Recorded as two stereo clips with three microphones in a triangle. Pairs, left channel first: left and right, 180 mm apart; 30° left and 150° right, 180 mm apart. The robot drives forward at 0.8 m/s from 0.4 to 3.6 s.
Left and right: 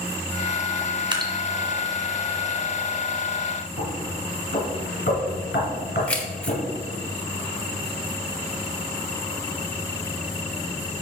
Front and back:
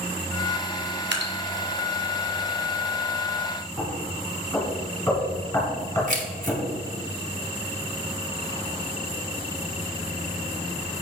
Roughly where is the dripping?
Behind right.